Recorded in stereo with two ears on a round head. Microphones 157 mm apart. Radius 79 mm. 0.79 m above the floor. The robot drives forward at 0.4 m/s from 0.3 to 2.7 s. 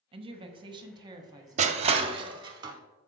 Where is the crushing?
40° right (ahead or behind), 0.5 m; by 2.8 s 20° right (ahead or behind), 0.9 m.